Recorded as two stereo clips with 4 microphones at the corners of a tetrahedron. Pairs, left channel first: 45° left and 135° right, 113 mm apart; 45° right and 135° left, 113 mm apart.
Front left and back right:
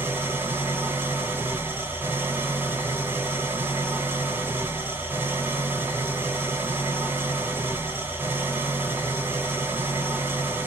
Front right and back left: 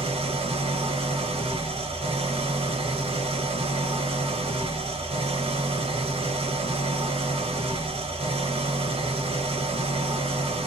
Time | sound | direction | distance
0.0 | an engine running | 155° left | 0.8 m